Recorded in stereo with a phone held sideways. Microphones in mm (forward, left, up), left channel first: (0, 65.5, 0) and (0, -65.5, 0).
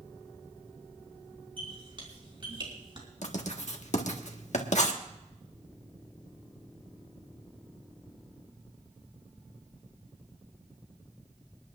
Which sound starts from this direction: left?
Writing, at 3.2 s.